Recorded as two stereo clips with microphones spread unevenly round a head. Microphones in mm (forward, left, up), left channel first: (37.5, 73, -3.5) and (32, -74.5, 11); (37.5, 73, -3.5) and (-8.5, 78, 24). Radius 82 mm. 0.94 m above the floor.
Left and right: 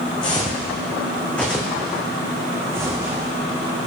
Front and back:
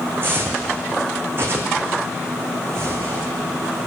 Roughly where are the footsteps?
Behind left.